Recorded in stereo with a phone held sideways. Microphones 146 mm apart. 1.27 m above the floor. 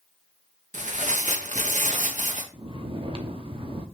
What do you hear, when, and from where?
0.7 s tearing paper: 65° right (ahead or behind), 0.9 m
2.5 s snoring: 40° right (ahead or behind), 0.9 m